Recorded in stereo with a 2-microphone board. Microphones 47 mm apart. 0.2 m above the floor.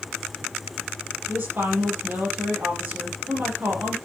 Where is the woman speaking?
45° right (ahead or behind), 6 m.